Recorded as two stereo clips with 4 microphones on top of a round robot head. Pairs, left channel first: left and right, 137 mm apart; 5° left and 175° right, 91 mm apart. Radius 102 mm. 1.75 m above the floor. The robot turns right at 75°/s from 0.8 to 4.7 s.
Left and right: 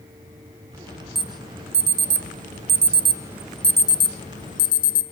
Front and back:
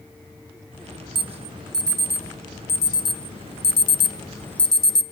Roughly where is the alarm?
Behind.